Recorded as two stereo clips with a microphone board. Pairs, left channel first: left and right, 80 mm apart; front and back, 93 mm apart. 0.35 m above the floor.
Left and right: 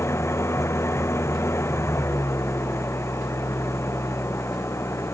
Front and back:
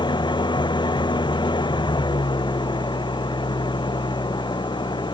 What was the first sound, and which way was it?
An engine running, 35° left.